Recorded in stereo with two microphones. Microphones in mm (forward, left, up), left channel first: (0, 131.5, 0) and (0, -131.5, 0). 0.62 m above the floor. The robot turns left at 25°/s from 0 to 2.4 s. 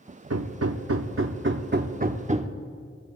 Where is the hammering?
100° right, 0.7 m; by 2.5 s 150° right, 0.7 m.